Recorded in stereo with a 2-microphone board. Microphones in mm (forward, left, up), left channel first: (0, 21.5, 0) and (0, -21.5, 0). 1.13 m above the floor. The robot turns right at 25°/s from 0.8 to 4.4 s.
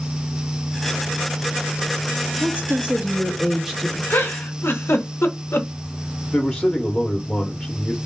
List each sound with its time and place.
2.4 s a woman speaking: 40° right, 1.0 m; by 4.0 s straight ahead, 1.0 m
4.1 s a giggle: 85° left, 0.6 m
6.3 s a man speaking: 25° left (ahead or behind), 0.7 m